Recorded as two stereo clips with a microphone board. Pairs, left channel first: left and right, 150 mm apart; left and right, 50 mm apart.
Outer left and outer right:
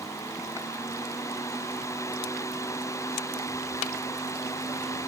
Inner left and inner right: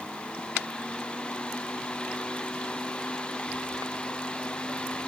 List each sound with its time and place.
Only background noise.